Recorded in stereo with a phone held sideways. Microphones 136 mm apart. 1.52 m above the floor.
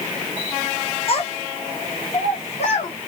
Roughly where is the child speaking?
Left.